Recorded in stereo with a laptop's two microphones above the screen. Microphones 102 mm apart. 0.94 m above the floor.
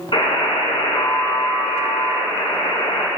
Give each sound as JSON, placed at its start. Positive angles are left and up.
{"t": 0.1, "sound": "a buzzer", "side_deg": 55, "distance_m": 2.5}